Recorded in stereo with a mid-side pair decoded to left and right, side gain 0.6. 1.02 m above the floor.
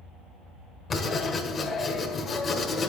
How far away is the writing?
About 1.9 m.